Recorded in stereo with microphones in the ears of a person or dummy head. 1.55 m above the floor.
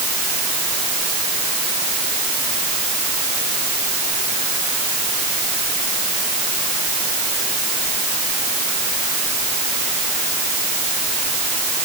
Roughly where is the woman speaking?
I don't hear a woman speaking.